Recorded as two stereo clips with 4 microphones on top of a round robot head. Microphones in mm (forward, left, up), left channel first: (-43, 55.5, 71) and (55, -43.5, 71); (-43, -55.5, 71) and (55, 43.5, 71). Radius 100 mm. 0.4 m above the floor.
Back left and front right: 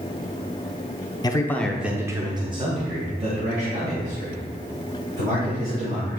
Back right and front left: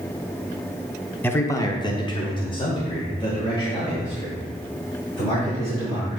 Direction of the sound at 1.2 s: 160° left.